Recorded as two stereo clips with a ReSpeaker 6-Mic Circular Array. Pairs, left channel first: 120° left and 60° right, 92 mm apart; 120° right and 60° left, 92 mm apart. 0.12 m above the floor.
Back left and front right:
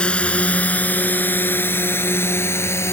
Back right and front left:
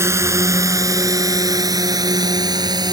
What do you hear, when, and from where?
0.0 s a drone: 55° left; by 2.9 s 70° left